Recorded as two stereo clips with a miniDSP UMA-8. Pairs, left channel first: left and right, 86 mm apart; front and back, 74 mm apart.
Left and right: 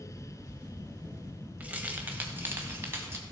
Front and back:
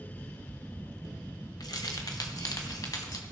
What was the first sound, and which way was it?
Keys jangling, 20° right.